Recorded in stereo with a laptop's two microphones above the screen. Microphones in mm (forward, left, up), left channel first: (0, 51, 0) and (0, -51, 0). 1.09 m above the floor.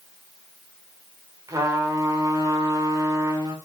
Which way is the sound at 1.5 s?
35° right (ahead or behind).